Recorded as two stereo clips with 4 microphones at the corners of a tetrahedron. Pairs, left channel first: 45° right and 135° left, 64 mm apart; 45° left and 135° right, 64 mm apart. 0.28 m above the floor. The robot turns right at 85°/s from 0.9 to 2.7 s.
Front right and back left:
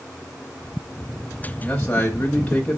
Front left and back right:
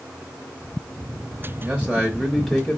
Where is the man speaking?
100° right, 1.0 m; by 2.8 s 10° right, 1.0 m.